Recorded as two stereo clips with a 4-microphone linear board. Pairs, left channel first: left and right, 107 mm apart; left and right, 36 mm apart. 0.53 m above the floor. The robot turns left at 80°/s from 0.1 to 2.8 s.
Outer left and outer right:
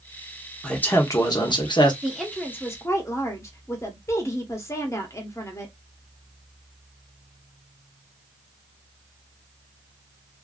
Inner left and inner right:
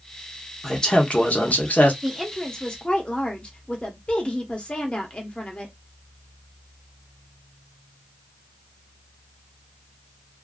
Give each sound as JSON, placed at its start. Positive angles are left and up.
{"t": 0.6, "sound": "a man speaking", "azimuth_deg": 170, "distance_m": 0.9}
{"t": 2.0, "sound": "a woman speaking", "azimuth_deg": -170, "distance_m": 0.8}